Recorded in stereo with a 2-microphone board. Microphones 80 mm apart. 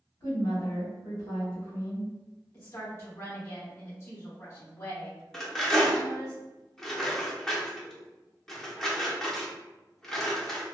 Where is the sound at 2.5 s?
35° left (ahead or behind), 1.4 m.